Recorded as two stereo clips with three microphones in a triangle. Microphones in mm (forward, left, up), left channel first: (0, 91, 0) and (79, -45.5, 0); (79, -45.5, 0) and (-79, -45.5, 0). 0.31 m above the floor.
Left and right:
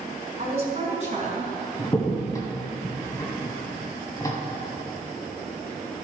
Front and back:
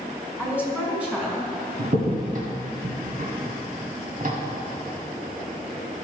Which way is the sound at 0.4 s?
100° right.